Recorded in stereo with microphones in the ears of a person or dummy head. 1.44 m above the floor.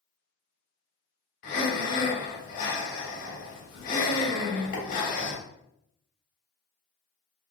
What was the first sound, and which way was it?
Breathing, 50° left (ahead or behind).